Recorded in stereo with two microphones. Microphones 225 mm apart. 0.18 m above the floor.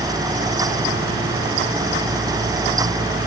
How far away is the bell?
No bell in this recording.